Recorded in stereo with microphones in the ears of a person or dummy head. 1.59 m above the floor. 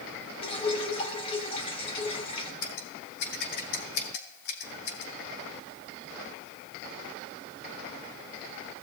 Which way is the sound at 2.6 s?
60° left (ahead or behind).